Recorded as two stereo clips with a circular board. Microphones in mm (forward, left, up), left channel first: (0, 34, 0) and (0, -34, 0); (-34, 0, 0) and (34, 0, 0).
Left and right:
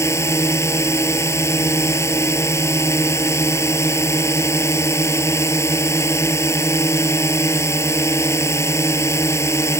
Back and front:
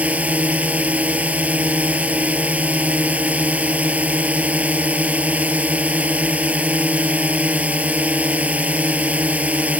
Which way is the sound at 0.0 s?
65° left.